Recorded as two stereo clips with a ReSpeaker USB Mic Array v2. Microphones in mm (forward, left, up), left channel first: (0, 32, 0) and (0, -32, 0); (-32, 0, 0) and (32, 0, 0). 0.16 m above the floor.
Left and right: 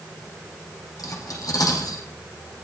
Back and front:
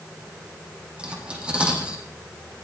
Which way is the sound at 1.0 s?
75° left.